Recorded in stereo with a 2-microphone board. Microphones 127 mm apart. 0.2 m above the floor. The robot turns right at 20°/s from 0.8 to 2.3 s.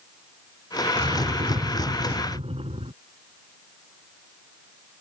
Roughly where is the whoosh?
Right.